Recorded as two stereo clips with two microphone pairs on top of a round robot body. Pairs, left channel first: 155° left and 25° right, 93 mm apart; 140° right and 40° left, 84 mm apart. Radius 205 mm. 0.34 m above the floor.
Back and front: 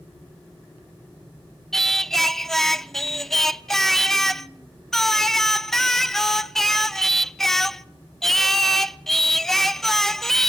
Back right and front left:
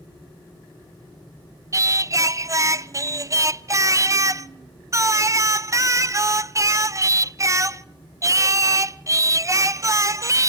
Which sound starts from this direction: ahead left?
Singing, at 1.7 s.